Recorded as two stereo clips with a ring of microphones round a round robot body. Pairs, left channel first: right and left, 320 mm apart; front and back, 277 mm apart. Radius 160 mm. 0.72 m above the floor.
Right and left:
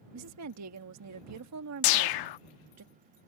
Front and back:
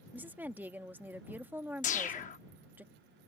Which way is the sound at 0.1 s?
100° left.